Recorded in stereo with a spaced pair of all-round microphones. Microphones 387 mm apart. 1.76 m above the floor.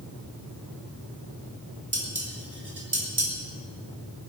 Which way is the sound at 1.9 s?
75° right (ahead or behind).